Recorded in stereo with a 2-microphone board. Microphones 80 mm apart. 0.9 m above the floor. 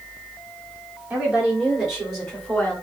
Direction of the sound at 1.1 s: 15° right (ahead or behind).